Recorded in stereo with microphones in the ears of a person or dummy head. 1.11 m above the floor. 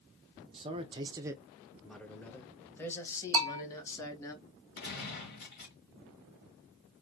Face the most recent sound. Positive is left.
turn(degrees=55)  # may be behind; listen again after turning